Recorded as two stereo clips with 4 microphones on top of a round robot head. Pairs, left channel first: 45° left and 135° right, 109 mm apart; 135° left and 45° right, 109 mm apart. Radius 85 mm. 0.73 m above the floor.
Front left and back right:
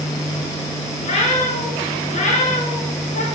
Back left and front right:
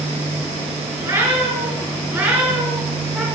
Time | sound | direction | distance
1.0 | a cat meowing | 20° left | 4.5 m